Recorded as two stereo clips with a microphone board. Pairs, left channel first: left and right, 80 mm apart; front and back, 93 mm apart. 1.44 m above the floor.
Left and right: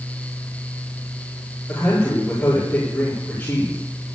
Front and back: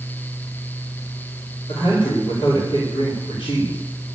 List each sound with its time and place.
1.7 s a man speaking: 30° left, 4.5 m